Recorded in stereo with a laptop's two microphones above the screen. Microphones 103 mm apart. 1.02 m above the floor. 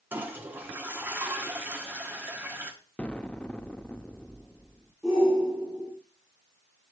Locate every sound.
0.1 s a toilet flushing: 20° right (ahead or behind), 1.2 m
3.0 s an explosion: 10° left (ahead or behind), 0.7 m
5.0 s a shout: centre (ahead or behind), 3 m